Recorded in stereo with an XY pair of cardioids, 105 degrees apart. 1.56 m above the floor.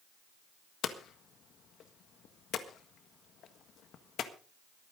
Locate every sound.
0.8 s hammering: 65° left, 1.6 m